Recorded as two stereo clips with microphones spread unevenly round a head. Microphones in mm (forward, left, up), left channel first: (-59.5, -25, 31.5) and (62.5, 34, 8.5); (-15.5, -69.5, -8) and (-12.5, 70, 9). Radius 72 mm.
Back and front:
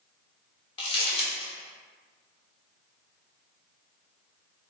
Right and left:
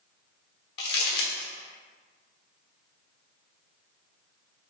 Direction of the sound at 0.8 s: 105° right.